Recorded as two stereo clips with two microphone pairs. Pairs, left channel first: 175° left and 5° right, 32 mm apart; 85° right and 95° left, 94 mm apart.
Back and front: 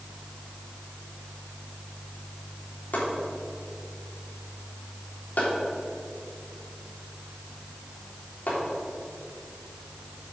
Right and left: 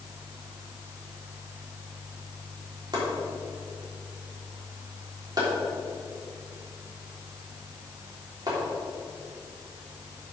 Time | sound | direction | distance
2.9 | chopping | 145° left | 3.5 m